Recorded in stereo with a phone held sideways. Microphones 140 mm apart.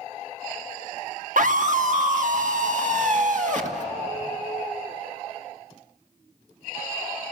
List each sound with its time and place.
1.4 s a scream: 65° right (ahead or behind), 1.3 m; by 3.8 s 60° right (ahead or behind), 2.5 m